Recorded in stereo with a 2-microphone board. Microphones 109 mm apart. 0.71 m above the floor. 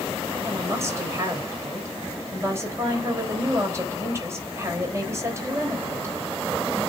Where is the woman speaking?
25° right (ahead or behind), 3.5 m.